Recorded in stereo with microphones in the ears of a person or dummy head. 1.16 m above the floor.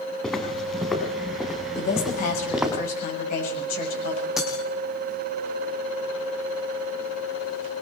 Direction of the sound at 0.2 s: Centre (ahead or behind).